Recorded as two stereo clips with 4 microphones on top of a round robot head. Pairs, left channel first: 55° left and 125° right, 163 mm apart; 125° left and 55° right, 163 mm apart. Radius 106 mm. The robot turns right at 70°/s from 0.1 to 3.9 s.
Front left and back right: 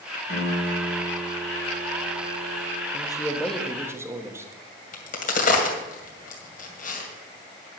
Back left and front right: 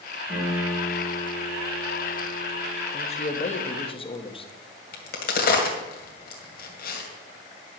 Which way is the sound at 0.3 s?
20° left.